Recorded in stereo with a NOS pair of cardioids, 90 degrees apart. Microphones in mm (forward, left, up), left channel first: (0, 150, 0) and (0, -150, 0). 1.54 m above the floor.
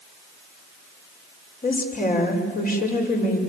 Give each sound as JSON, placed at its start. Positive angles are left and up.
{"t": 1.6, "sound": "a woman speaking", "azimuth_deg": 30, "distance_m": 6.0}